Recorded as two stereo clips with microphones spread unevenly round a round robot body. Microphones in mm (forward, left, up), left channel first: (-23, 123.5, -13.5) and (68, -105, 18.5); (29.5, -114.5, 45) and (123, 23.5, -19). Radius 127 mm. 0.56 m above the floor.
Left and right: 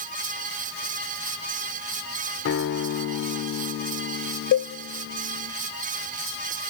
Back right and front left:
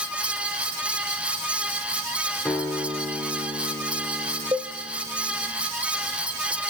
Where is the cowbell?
145° left, 0.5 m.